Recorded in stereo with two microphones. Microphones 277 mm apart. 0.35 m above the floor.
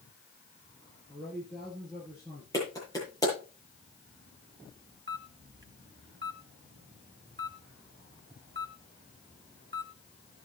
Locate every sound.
1.1 s a man speaking: 5° left (ahead or behind), 7 m
2.5 s a clap: 10° left (ahead or behind), 9 m
5.1 s a camera shutter: 40° right (ahead or behind), 1.3 m